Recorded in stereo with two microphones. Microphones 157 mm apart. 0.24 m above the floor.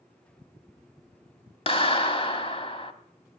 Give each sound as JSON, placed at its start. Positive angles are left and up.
{"t": 1.7, "sound": "a clap", "side_deg": 35, "distance_m": 1.2}